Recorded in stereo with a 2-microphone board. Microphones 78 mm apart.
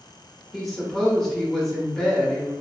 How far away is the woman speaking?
About 0.8 m.